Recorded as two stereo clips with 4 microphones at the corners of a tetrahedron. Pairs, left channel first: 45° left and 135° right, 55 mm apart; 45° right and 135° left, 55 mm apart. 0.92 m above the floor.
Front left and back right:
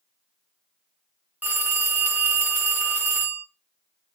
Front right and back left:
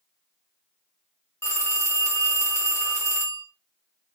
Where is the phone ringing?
75° right, 0.9 m.